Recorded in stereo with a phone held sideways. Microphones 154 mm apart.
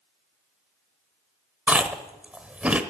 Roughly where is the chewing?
Centre.